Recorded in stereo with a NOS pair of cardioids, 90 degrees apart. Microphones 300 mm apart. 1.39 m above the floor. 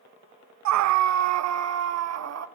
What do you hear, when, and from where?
0.7 s a scream: 70° right, 0.7 m; by 2.5 s 55° right, 2 m